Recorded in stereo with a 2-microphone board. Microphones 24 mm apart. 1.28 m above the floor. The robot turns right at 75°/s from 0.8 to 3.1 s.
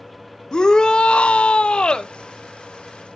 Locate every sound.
0.5 s a shout: 40° left, 0.8 m; by 2.1 s 140° left, 0.8 m